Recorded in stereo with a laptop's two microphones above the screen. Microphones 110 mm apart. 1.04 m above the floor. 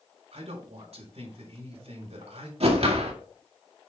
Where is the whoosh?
65° right (ahead or behind), 1.8 m.